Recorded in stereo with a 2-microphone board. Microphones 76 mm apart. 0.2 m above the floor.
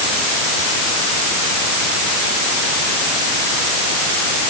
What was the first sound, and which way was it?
Only background noise.